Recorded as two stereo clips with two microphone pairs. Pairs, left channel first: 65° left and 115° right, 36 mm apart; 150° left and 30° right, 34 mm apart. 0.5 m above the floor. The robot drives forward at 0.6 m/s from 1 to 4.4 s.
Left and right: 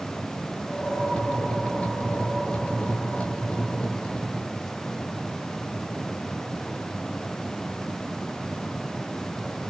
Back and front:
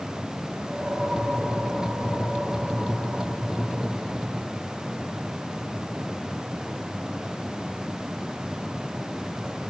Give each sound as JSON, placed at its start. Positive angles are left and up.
{"t": 0.7, "sound": "a whoosh", "azimuth_deg": -40, "distance_m": 6.0}